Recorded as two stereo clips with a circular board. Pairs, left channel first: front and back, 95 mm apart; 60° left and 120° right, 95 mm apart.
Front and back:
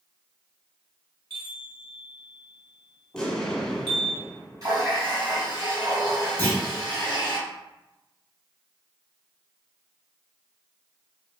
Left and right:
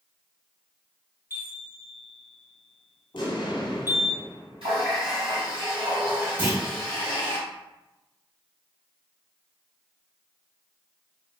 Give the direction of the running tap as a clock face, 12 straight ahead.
4 o'clock.